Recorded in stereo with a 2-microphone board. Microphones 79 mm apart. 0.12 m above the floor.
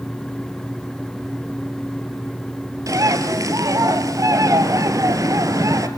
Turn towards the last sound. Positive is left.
turn(degrees=-50)  # may be behind; listen again after turning